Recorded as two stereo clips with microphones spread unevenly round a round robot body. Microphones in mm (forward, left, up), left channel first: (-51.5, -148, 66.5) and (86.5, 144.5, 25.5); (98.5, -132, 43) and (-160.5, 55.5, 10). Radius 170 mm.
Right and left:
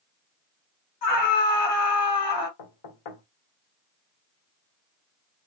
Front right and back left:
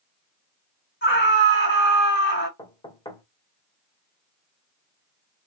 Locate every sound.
1.0 s a scream: 90° right, 2.5 m
2.6 s knocking: 115° right, 1.6 m